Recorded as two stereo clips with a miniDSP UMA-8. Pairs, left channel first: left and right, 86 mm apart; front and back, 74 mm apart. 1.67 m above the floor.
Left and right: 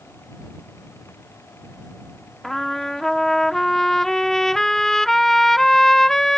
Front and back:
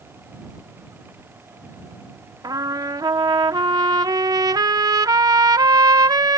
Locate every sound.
2.4 s a trumpet: 175° left